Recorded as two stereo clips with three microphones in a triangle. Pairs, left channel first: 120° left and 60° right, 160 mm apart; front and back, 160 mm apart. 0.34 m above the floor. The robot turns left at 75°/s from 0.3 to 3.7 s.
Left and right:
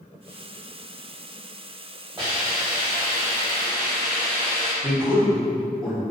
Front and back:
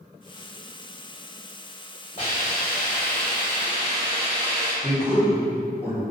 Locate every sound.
2.2 s a hiss: straight ahead, 1.7 m; by 4.7 s 115° right, 1.7 m
4.8 s a man speaking: 40° left, 1.4 m